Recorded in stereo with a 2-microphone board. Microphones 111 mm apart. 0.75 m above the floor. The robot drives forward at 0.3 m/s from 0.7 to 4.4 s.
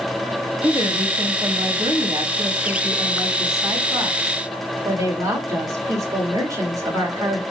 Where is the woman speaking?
45° right (ahead or behind), 1.0 m; by 7.4 s 30° right (ahead or behind), 1.4 m.